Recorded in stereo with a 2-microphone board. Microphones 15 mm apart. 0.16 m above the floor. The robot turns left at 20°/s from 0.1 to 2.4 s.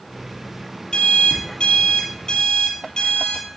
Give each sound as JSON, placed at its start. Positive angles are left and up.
{"t": 0.9, "sound": "an alarm clock", "side_deg": 70, "distance_m": 2.5}